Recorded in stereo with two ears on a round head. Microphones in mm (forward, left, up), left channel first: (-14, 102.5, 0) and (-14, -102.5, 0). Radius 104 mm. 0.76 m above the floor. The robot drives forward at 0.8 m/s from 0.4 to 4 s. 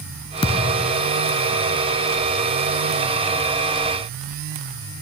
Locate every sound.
0.4 s a thud: 20° left (ahead or behind), 0.7 m